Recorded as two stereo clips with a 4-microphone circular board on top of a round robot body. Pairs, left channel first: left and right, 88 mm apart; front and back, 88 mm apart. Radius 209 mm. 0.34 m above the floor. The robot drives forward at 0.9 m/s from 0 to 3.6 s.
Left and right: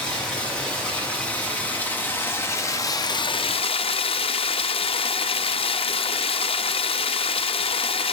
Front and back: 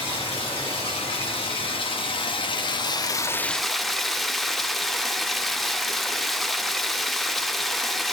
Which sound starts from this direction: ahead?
Running water, at 0.0 s.